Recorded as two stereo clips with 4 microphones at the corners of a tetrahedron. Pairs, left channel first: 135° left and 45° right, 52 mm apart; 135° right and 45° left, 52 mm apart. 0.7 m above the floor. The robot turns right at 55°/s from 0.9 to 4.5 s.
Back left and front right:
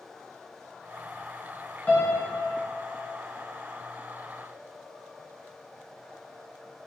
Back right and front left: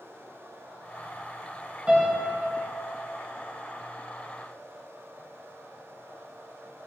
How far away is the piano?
About 0.5 m.